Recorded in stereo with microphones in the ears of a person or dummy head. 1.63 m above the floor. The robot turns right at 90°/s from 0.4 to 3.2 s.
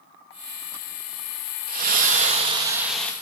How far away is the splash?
About 1.1 m.